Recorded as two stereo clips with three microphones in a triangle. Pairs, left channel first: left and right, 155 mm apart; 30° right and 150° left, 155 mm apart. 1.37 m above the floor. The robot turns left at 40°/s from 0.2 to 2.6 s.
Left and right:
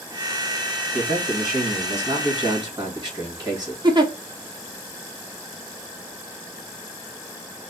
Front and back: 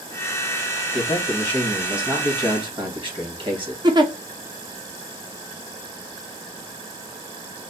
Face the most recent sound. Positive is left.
turn(degrees=-145)